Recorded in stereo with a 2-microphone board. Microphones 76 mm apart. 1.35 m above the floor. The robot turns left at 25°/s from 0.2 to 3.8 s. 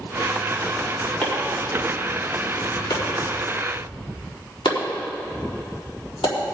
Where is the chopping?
20° left (ahead or behind), 3.5 m; by 6.3 s 85° left, 3.5 m.